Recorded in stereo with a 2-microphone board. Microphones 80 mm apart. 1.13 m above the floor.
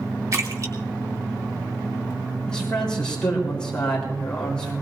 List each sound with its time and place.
0.3 s a splash: 45° right (ahead or behind), 2.5 m
2.5 s a man speaking: 10° left (ahead or behind), 3.5 m